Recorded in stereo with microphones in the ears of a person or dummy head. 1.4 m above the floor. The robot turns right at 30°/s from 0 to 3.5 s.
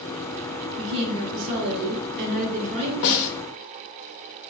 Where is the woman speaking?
95° right, 0.9 m; by 2.9 s 30° right, 0.9 m.